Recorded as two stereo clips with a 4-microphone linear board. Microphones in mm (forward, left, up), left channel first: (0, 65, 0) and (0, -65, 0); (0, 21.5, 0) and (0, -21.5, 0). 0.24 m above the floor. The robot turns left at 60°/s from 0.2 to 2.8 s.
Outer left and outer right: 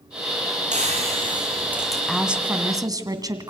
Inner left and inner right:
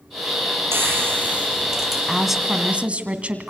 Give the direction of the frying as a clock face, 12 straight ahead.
4 o'clock.